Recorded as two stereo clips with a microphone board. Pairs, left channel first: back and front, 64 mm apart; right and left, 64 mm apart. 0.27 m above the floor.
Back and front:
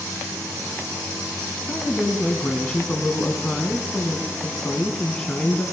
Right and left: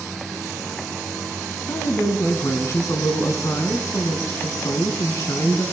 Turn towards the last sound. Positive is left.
turn(degrees=-105)